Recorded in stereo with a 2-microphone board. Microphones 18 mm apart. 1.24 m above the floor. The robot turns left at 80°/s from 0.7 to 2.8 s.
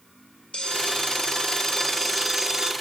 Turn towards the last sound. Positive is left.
turn(degrees=-55)